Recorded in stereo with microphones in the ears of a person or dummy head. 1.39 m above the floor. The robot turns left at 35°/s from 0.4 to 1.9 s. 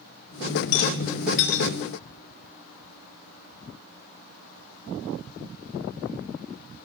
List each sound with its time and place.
0.7 s a rattle: 50° left (ahead or behind), 1.8 m; by 1.7 s 65° left (ahead or behind), 1.8 m